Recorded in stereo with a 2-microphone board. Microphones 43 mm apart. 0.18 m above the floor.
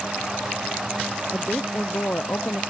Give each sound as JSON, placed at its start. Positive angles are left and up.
{"t": 1.3, "sound": "a woman speaking", "side_deg": 55}